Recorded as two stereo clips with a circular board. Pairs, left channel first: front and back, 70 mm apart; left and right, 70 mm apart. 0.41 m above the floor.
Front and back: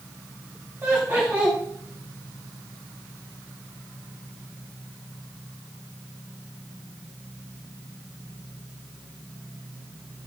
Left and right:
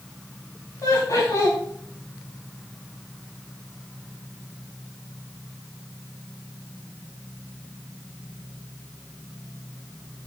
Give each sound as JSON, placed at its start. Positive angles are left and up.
{"t": 0.8, "sound": "laughter", "azimuth_deg": 125, "distance_m": 3.5}